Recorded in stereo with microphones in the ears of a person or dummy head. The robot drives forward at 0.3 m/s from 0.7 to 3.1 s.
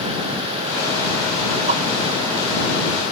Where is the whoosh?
35° right (ahead or behind); by 1.8 s 40° right (ahead or behind).